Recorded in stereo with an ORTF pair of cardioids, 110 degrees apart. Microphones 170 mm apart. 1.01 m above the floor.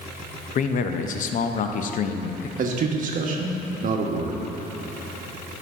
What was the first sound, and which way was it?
A man speaking, 50° left.